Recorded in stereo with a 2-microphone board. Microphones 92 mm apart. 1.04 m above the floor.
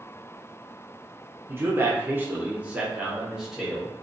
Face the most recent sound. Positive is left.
turn(degrees=0)  # may be behind; listen again after turning